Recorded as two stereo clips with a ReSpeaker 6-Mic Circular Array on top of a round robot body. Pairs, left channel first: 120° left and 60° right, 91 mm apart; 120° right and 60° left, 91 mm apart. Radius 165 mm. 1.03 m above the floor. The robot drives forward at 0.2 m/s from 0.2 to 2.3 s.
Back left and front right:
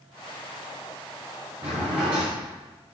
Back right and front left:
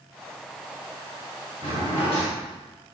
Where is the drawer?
90° right, 0.8 m; by 2.3 s 100° right, 0.8 m.